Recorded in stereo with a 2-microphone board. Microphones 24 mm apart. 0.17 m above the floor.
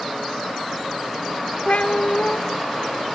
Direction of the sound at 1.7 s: 65° left (ahead or behind).